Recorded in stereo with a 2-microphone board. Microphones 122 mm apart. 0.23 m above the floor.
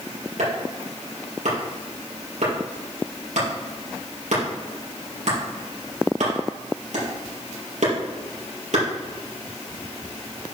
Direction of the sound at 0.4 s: 80° right.